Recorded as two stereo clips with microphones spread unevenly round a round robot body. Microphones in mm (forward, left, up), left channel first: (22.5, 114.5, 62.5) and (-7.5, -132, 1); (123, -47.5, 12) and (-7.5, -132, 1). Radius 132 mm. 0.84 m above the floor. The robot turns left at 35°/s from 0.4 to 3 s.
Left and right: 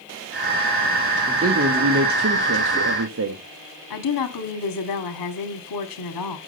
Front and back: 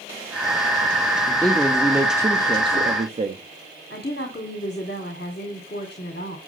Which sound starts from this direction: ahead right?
A man speaking, at 1.3 s.